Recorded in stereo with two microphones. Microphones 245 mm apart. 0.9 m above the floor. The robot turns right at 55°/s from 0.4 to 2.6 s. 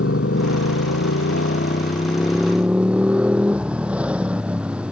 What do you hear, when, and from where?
0.0 s a motorcycle: 65° left; by 4.9 s 175° right